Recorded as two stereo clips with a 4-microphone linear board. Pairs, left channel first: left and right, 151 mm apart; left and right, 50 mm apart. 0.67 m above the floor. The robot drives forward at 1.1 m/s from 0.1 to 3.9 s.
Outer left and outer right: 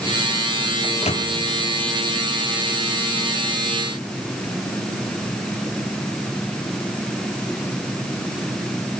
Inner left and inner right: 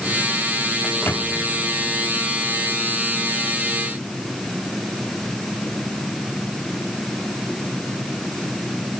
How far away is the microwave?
About 1.1 m.